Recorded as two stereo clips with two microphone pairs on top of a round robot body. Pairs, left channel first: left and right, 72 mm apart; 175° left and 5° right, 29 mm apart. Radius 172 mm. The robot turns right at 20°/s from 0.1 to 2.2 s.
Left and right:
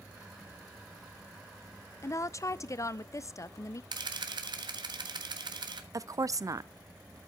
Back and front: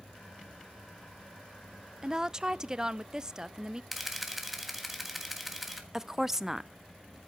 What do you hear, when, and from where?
2.0 s a woman speaking: 45° left, 0.6 m; by 3.8 s 50° left, 0.6 m
3.9 s a camera shutter: 90° right, 1.4 m
5.9 s a woman speaking: 70° right, 0.6 m